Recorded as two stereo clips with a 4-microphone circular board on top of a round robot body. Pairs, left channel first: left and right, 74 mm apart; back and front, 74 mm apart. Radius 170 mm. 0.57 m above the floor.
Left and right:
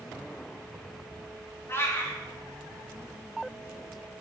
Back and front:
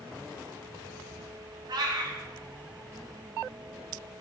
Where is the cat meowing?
30° left, 0.7 m.